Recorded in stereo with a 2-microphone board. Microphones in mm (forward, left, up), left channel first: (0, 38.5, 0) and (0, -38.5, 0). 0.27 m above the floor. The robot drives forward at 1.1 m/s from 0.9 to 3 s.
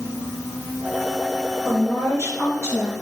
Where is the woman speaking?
35° left (ahead or behind), 3.5 m; by 2.9 s 25° left (ahead or behind), 4.5 m.